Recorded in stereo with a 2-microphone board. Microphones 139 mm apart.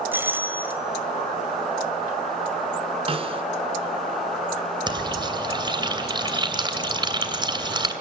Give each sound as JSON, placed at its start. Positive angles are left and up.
{"t": 0.1, "sound": "a doorbell", "side_deg": -15, "distance_m": 1.5}
{"t": 3.1, "sound": "a snare drum", "side_deg": -40, "distance_m": 0.9}
{"t": 4.9, "sound": "frying", "side_deg": -35, "distance_m": 2.5}